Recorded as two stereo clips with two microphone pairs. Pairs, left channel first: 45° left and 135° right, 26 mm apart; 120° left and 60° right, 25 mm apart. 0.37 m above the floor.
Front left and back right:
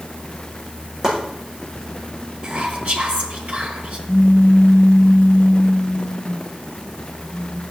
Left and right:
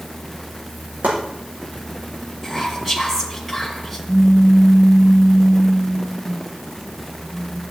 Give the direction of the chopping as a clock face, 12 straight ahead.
2 o'clock.